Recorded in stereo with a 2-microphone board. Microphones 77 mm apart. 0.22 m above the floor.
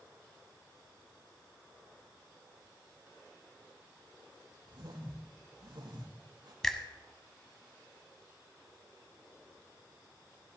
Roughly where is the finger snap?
Centre.